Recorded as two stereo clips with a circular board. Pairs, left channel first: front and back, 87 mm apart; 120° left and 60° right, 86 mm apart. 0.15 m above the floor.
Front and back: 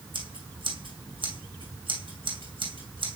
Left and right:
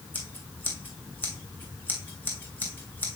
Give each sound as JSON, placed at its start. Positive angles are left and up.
{"t": 0.1, "sound": "scissors", "azimuth_deg": -170, "distance_m": 3.0}